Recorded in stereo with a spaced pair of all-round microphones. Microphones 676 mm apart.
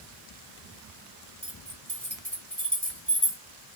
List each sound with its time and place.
1.4 s keys jangling: 25° right (ahead or behind), 2.5 m